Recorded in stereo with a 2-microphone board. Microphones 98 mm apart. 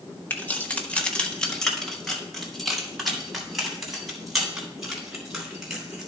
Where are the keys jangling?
20° left (ahead or behind), 1.1 m; by 6.1 s 5° right (ahead or behind), 4.5 m.